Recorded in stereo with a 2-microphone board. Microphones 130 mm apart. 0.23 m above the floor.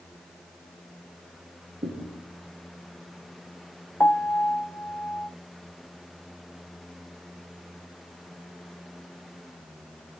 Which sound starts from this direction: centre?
A piano, at 4.0 s.